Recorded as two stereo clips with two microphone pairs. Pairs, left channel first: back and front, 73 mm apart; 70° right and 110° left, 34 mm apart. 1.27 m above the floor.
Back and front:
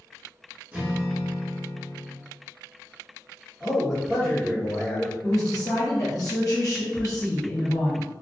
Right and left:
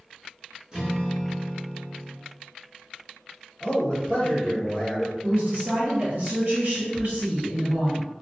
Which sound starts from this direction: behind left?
A woman speaking, at 5.2 s.